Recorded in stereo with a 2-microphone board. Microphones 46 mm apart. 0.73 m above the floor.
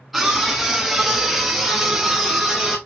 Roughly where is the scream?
Centre.